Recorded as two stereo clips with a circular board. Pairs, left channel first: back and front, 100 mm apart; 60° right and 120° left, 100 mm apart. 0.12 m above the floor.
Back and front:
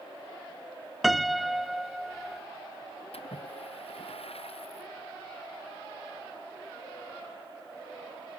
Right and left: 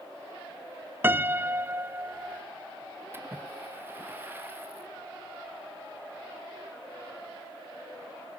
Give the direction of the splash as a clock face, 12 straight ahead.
6 o'clock.